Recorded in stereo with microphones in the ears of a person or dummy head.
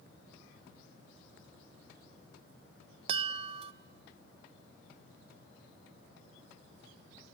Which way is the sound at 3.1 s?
35° right (ahead or behind).